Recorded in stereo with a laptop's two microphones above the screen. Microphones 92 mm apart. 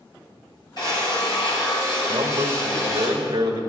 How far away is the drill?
About 6 m.